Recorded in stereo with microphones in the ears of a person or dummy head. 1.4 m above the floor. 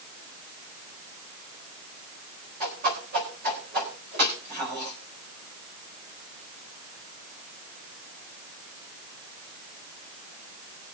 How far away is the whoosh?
About 4 m.